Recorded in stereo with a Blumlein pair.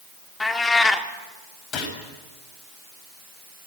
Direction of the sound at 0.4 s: 10° left.